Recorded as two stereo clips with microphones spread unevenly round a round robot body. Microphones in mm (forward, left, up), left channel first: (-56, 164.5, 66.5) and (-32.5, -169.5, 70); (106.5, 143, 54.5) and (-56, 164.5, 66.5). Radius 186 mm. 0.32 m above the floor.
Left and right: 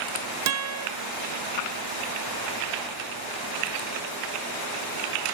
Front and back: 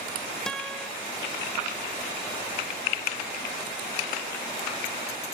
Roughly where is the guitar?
Right.